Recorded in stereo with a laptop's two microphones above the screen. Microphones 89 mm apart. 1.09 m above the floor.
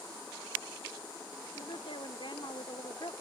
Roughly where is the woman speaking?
Left.